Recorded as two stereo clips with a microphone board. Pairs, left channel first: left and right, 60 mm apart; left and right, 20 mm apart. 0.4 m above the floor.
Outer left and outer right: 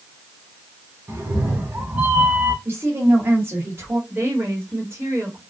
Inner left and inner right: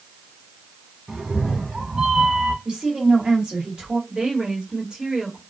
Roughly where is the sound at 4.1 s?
Right.